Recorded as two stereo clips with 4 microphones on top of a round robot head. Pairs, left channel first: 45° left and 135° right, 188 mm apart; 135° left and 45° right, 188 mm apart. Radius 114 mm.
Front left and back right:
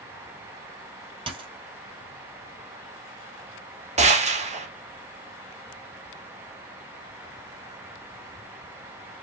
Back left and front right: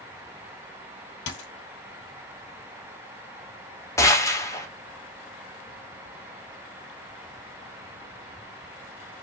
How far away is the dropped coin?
About 2 m.